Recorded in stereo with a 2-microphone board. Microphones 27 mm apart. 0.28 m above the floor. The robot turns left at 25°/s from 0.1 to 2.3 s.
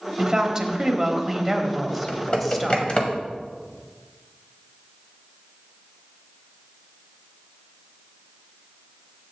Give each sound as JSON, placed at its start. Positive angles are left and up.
{"t": 0.2, "sound": "a woman speaking", "azimuth_deg": -140, "distance_m": 1.1}
{"t": 1.9, "sound": "typing on a keyboard", "side_deg": 40, "distance_m": 1.3}